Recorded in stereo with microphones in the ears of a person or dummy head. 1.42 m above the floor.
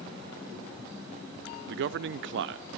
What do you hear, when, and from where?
1.7 s a man speaking: 55° right (ahead or behind), 0.7 m